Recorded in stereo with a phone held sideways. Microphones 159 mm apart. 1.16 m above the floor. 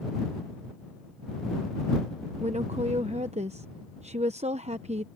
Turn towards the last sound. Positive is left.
turn(degrees=-45)  # may be behind; listen again after turning